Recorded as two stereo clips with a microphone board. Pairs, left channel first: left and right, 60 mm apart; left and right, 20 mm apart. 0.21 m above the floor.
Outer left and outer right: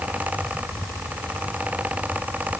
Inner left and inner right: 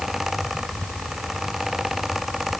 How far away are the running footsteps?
I don't hear running footsteps.